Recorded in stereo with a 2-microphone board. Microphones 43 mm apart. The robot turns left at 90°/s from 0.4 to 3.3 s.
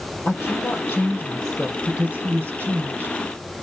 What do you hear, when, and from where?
0.2 s a woman speaking: 105° left, 2.5 m; by 3.2 s 150° right, 2.5 m